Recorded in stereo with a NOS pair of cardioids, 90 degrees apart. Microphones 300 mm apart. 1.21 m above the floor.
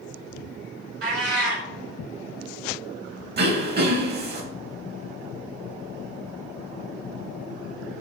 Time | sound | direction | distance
1.0 | a cat meowing | 55° right | 1.6 m
3.4 | throat clearing | 35° right | 0.9 m